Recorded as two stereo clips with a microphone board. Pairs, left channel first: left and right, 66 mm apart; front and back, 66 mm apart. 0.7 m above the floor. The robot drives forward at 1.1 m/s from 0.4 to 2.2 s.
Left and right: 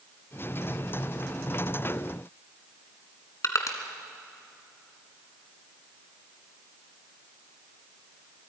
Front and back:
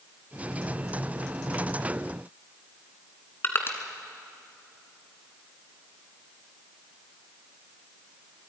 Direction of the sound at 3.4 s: 55° left.